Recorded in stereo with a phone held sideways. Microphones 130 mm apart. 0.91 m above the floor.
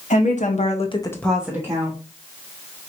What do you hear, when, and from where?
0.1 s a woman speaking: 70° left (ahead or behind), 1.7 m; by 2.0 s 30° right (ahead or behind), 1.7 m